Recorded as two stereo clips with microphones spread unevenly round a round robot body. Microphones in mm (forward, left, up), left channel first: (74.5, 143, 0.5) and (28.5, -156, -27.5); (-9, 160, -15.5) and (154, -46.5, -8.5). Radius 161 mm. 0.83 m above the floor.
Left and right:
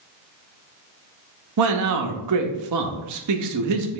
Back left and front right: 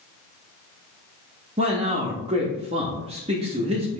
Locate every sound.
1.6 s a man speaking: 125° right, 0.6 m